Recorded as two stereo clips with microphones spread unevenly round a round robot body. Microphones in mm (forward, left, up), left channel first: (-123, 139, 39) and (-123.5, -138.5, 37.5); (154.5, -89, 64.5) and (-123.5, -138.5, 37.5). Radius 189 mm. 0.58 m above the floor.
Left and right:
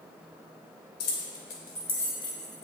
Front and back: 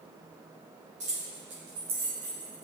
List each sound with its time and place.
1.0 s keys jangling: 120° left, 1.2 m; by 2.6 s 145° left, 2.5 m